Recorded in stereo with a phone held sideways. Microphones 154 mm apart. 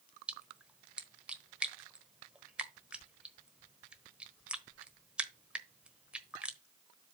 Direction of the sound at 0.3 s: 5° right (ahead or behind).